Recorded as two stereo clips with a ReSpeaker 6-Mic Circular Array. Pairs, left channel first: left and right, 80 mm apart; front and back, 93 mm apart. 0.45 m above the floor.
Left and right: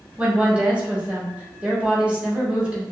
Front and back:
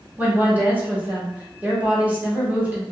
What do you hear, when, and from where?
0.2 s a woman speaking: 140° right, 0.9 m